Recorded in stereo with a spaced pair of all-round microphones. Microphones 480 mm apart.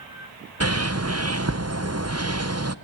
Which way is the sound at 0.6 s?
30° right (ahead or behind).